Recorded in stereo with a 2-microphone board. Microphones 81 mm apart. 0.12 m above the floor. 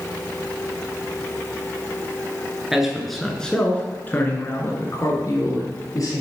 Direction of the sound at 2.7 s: 5° right (ahead or behind).